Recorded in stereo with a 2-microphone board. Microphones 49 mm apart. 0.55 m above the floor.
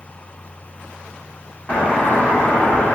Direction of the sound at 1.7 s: 25° left (ahead or behind).